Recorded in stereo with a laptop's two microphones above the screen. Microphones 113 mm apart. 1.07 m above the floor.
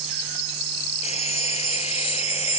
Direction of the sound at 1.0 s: 65° left (ahead or behind).